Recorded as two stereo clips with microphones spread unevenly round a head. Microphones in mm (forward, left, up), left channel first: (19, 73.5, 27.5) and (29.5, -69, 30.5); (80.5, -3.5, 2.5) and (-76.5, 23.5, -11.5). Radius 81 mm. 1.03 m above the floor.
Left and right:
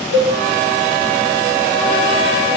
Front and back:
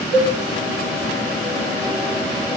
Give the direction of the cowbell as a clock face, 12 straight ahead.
7 o'clock.